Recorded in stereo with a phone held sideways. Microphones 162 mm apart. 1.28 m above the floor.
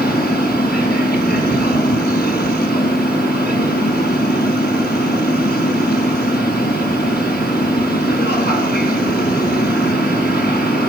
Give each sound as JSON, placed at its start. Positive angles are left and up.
{"t": 0.0, "sound": "a machine running", "side_deg": 75, "distance_m": 7.0}